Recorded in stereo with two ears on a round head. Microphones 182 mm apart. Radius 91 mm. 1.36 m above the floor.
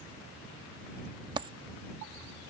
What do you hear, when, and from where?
1.4 s a dropped coin: 25° right (ahead or behind)